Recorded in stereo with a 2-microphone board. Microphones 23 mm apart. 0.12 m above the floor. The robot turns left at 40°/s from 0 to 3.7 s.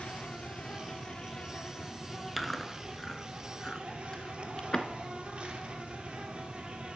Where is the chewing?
5° left (ahead or behind), 0.6 m; by 4.9 s 30° left (ahead or behind), 0.6 m.